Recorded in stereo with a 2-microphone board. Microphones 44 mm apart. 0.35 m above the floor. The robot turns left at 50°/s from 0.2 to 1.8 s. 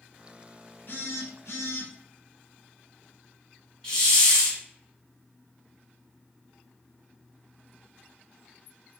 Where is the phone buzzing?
125° left, 0.8 m; by 1.9 s 80° left, 0.8 m.